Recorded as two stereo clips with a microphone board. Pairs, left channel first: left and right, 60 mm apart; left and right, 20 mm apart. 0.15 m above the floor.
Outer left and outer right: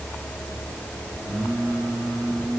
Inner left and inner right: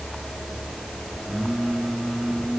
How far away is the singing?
About 9 m.